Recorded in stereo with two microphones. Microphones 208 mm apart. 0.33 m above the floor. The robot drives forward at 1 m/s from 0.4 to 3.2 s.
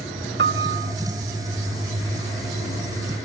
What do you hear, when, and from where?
0.4 s a piano: 55° right (ahead or behind), 0.6 m; by 0.9 s 45° right (ahead or behind), 0.8 m